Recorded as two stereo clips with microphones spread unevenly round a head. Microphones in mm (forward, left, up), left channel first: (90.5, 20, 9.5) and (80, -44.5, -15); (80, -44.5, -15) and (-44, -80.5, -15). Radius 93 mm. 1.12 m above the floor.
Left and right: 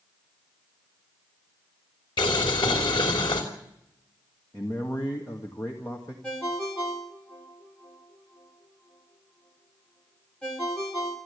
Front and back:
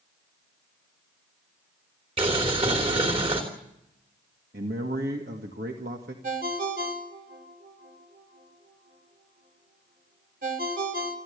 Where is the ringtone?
160° left, 2.5 m.